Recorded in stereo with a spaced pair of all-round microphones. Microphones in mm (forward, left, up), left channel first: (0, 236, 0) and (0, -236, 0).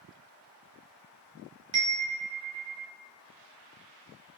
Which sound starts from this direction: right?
A chime, at 1.7 s.